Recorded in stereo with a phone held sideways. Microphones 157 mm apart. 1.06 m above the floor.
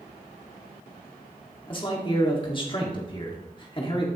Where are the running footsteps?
I don't hear running footsteps.